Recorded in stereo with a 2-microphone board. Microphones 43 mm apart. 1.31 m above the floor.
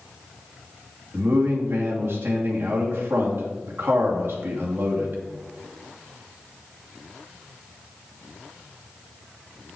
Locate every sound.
1.1 s a man speaking: 55° right (ahead or behind), 2.5 m